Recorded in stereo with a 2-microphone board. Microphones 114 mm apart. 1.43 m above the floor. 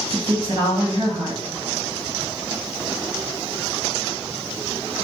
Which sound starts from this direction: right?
A woman speaking, at 0.1 s.